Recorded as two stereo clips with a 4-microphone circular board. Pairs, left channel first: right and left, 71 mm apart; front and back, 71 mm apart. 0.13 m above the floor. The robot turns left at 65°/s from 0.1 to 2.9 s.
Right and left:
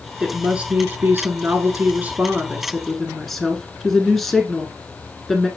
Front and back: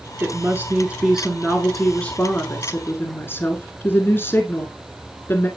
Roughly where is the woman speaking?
Behind.